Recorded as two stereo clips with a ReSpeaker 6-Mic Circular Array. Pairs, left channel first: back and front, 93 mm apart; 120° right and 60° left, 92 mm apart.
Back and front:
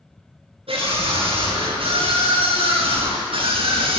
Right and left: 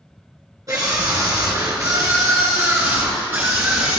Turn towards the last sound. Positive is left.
turn(degrees=-10)